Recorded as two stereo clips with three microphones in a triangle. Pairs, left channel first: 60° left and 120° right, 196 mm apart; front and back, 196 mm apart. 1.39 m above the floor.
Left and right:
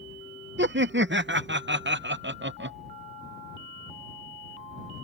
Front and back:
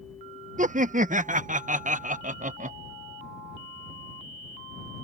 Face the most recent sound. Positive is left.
turn(degrees=-135)